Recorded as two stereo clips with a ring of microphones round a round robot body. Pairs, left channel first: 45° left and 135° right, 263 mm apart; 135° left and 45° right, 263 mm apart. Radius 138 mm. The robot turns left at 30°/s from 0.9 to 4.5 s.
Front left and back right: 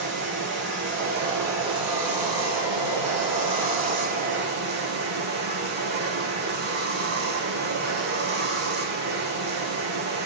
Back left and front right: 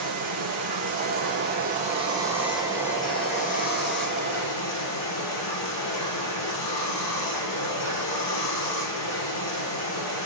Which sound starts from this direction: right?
Running water, at 0.0 s.